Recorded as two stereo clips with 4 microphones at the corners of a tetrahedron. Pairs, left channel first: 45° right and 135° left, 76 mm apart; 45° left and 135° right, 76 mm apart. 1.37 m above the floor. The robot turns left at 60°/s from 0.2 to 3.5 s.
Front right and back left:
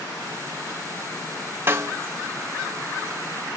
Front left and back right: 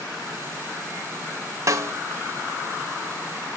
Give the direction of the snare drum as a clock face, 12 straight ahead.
6 o'clock.